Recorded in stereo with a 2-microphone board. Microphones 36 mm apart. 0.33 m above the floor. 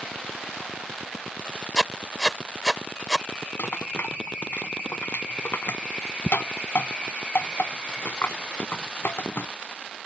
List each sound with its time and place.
1.8 s writing: 15° left (ahead or behind)
3.6 s a rattle: 70° left (ahead or behind)